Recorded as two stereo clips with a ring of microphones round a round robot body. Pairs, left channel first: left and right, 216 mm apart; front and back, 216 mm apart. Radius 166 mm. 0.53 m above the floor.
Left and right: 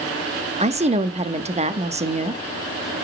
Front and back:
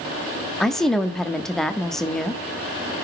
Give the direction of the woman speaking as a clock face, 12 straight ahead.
3 o'clock.